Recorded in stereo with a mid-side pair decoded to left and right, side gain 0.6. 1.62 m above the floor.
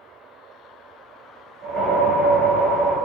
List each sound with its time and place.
1.6 s a whoosh: 60° right, 1.5 m